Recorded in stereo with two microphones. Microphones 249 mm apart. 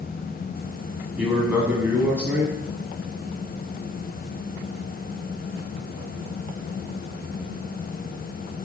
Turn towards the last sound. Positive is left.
turn(degrees=-5)  # may be behind; listen again after turning